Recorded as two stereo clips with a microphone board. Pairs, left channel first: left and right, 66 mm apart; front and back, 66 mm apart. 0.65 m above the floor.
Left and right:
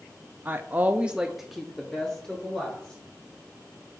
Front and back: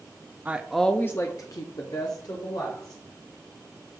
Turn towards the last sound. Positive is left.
turn(degrees=10)